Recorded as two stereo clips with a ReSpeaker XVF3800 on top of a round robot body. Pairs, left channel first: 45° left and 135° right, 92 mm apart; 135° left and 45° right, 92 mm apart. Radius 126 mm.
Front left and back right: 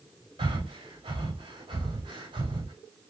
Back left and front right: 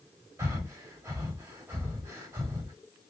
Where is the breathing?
105° right, 2.0 m.